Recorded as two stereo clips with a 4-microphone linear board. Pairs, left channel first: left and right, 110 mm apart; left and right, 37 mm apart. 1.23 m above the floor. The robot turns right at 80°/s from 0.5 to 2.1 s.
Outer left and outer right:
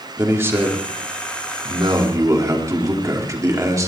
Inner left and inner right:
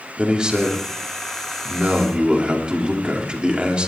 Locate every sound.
0.2 s a man speaking: 160° right, 3 m; by 3.9 s 30° right, 3 m